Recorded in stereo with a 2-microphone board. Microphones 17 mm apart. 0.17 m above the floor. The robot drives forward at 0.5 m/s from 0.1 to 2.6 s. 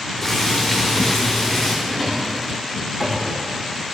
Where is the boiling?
5° left (ahead or behind), 7 m.